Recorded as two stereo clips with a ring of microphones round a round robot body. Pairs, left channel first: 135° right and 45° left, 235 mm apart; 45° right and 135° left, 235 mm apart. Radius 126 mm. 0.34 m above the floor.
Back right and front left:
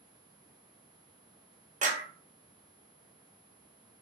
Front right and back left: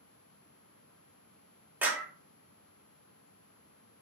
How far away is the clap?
About 1.2 m.